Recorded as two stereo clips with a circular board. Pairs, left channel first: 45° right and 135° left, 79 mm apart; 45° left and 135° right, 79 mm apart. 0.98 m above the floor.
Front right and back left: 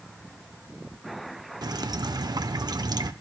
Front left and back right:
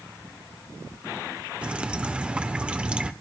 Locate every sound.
1.6 s dripping: 150° left, 1.0 m